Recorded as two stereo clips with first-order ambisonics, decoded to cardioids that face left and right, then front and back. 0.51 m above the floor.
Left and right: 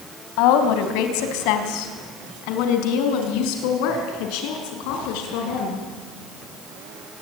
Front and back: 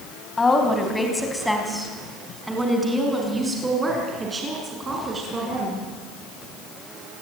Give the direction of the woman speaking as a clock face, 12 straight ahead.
9 o'clock.